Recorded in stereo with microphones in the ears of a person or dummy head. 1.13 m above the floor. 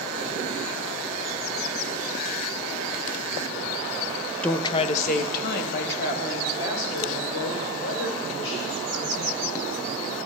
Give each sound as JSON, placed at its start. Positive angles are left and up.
{"t": 4.4, "sound": "a woman speaking", "side_deg": 5, "distance_m": 0.6}